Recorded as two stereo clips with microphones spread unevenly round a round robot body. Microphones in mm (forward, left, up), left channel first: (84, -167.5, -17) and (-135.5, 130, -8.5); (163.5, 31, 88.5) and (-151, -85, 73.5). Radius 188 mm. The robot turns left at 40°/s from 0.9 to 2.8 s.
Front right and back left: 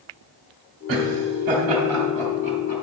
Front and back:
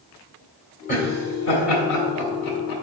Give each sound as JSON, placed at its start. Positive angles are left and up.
{"t": 0.9, "sound": "laughter", "azimuth_deg": 90, "distance_m": 2.0}